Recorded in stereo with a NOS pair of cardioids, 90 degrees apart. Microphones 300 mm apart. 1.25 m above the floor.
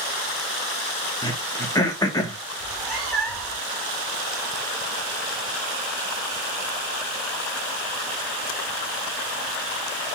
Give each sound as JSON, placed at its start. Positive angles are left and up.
{"t": 1.2, "sound": "throat clearing", "azimuth_deg": 15, "distance_m": 1.9}
{"t": 2.6, "sound": "a cat meowing", "azimuth_deg": 0, "distance_m": 4.0}